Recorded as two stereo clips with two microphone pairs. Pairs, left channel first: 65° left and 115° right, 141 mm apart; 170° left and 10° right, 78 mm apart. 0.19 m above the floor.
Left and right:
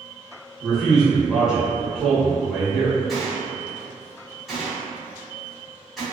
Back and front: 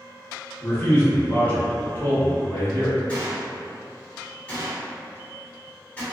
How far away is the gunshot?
About 1.2 m.